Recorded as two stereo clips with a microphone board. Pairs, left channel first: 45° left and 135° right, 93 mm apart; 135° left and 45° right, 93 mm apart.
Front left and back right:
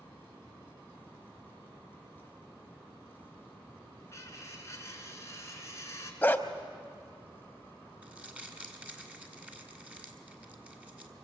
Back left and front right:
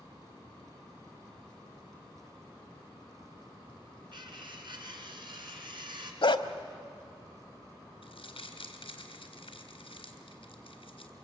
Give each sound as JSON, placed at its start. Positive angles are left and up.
{"t": 4.1, "sound": "cutlery clinking", "azimuth_deg": -15, "distance_m": 2.5}
{"t": 6.2, "sound": "a dog barking", "azimuth_deg": 115, "distance_m": 1.0}
{"t": 8.0, "sound": "crumpling", "azimuth_deg": 150, "distance_m": 2.0}